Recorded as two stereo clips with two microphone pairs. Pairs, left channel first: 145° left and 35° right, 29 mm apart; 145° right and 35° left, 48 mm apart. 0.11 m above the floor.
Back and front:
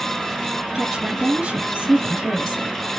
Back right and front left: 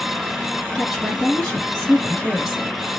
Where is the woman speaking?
55° right, 2.5 m.